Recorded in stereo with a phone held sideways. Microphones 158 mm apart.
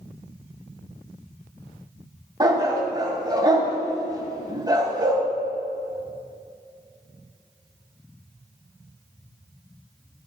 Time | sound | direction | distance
2.4 | a dog barking | 25° right (ahead or behind) | 1.8 m